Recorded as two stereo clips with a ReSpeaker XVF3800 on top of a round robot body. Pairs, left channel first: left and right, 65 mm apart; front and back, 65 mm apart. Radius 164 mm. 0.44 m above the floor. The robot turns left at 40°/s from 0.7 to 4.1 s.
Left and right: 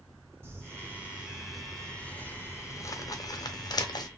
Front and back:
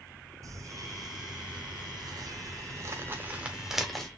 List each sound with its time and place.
0.4 s crumpling: 140° right, 1.0 m; by 4.1 s 85° left, 1.0 m